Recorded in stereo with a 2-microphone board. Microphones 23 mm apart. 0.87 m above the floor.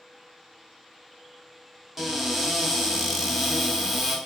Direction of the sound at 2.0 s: 10° right (ahead or behind).